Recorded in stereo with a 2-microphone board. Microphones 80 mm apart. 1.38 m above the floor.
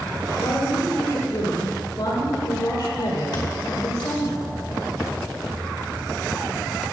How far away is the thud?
About 2.5 m.